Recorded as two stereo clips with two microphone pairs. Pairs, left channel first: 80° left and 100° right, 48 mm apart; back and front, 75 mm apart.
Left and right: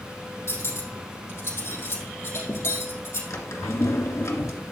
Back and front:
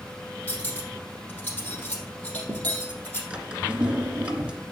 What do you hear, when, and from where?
0.5 s cutlery clinking: 110° left, 4 m
3.3 s a drawer: 75° left, 1.9 m